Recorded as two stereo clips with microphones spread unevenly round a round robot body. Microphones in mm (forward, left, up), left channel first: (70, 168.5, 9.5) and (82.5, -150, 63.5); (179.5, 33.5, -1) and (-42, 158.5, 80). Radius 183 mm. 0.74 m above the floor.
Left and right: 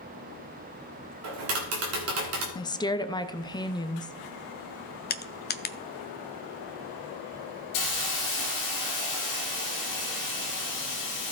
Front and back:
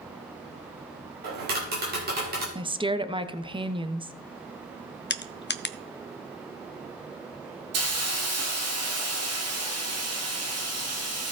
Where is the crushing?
25° left, 0.7 m.